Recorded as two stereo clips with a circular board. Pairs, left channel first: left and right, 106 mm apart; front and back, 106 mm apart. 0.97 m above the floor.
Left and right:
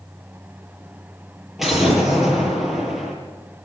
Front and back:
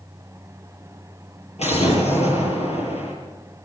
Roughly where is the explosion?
Ahead.